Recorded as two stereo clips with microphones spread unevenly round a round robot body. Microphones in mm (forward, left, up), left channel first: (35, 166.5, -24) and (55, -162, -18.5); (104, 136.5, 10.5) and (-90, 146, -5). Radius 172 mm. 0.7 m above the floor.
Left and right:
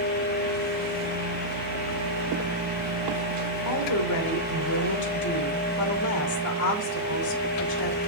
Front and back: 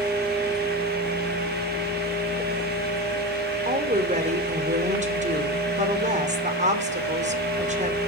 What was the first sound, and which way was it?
A woman speaking, 130° left.